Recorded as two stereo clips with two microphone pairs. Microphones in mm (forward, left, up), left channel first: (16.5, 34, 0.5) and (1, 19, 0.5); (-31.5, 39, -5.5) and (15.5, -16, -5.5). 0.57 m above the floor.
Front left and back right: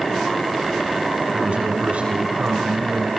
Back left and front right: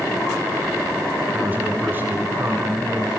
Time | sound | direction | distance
1.3 | a man speaking | 120° right | 6.5 m